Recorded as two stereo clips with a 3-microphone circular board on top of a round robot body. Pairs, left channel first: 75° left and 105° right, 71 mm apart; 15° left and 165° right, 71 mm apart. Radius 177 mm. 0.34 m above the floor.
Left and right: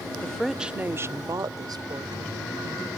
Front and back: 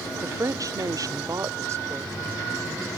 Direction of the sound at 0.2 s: 150° left.